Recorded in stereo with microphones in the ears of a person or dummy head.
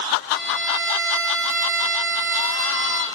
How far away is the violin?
About 0.5 m.